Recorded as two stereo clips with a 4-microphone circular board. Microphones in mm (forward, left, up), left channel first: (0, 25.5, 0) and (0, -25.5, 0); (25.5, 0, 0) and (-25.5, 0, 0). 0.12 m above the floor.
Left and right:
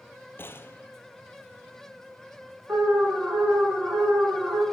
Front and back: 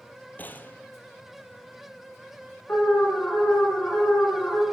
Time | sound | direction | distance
0.4 | a gunshot | 50° left | 1.3 m
2.7 | an alarm | 55° right | 7.5 m